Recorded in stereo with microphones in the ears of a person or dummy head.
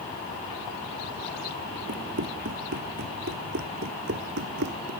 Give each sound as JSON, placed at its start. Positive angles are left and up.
{"t": 1.9, "sound": "running footsteps", "side_deg": -50}